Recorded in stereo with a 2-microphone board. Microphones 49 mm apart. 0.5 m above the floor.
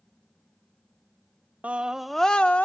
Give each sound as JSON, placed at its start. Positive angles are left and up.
{"t": 1.6, "sound": "a scream", "side_deg": -30, "distance_m": 0.8}